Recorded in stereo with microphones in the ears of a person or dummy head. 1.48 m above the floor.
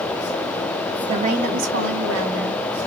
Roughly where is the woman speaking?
Right.